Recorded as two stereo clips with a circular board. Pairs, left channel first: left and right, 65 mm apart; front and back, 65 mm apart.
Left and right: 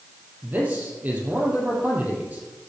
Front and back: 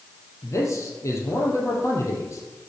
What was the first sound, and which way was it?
A man speaking, 30° right.